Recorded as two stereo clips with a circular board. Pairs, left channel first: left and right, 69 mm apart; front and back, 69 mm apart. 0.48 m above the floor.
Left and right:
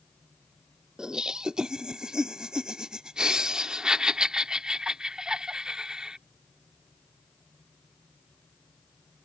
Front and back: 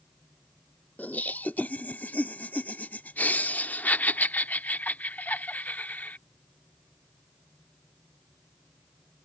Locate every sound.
1.0 s laughter: 25° right